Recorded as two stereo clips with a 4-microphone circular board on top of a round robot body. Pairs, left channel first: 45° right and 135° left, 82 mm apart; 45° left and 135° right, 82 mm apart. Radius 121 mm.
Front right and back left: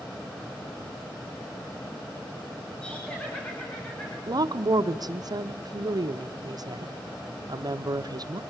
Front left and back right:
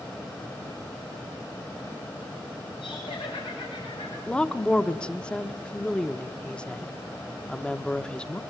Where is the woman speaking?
120° left, 1.1 m.